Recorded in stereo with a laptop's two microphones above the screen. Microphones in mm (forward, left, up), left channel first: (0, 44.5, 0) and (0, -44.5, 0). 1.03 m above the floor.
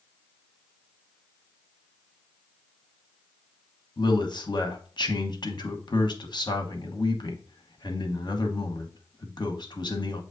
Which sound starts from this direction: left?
A man speaking, at 4.0 s.